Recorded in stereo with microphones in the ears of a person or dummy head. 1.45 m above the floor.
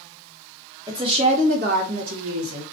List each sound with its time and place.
0.9 s a woman speaking: 20° right (ahead or behind), 1.0 m; by 2.6 s 75° right (ahead or behind), 1.0 m